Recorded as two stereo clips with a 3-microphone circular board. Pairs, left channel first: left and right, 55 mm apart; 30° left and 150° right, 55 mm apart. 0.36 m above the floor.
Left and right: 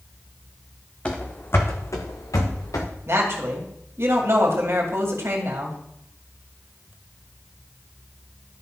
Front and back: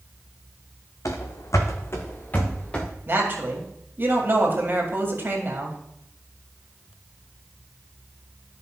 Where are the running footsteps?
20° left, 1.4 m; by 2.9 s 105° left, 2 m.